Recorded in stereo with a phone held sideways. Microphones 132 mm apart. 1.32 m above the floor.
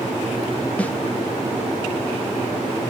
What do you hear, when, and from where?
0.8 s a snare drum: 10° left (ahead or behind), 1.0 m